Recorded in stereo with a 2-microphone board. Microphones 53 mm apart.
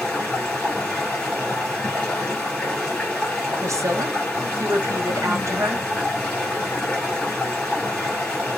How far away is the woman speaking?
About 0.7 m.